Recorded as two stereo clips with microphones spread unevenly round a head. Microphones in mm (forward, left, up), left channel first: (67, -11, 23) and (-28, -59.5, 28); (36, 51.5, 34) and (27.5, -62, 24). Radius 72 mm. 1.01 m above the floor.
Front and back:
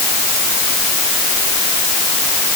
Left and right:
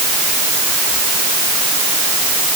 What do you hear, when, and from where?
Only background noise.